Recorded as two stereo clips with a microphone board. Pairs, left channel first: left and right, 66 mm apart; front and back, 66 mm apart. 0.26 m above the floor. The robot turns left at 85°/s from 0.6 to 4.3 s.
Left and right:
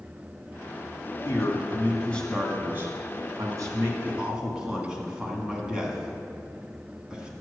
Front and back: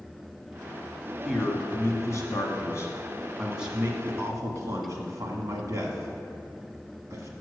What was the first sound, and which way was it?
A man speaking, 95° left.